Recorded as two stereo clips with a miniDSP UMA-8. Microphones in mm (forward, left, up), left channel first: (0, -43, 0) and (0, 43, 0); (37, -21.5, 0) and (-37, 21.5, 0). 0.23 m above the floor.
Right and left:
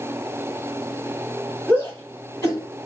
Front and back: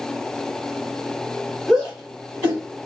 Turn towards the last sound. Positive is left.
turn(degrees=-140)